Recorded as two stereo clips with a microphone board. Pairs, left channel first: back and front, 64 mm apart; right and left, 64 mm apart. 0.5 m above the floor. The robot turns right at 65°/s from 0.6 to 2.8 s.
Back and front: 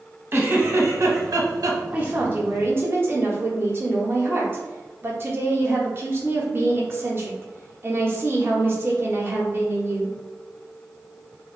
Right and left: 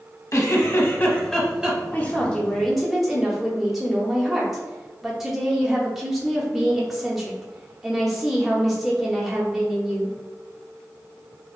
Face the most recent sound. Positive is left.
turn(degrees=10)